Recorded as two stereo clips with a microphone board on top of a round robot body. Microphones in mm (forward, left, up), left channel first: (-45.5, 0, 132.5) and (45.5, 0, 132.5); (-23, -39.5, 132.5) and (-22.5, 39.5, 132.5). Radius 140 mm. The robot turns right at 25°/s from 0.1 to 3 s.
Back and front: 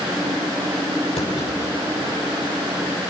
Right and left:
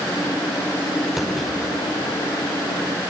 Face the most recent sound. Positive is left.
turn(degrees=-135)